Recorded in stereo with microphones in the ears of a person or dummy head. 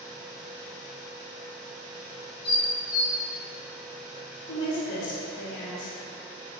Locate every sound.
2.4 s dishes clattering: 25° left (ahead or behind), 1.2 m
4.5 s a woman speaking: 65° left (ahead or behind), 1.5 m